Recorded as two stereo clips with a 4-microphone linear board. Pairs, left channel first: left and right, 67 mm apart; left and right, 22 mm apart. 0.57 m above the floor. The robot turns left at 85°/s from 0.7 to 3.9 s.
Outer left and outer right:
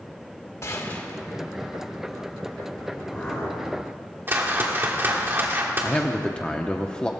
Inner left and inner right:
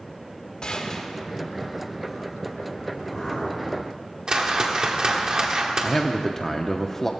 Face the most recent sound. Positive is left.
turn(degrees=15)  # may be behind; listen again after turning